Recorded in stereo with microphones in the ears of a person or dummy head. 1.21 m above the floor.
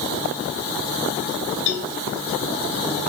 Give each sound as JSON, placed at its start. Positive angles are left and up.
{"t": 1.7, "sound": "a cowbell", "side_deg": 65, "distance_m": 2.5}